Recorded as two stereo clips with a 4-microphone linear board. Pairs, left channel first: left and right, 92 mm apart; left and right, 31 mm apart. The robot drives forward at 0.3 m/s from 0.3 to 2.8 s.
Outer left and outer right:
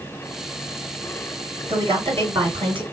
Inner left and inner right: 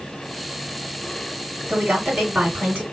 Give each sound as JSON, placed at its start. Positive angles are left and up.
{"t": 1.7, "sound": "a woman speaking", "side_deg": -65, "distance_m": 3.0}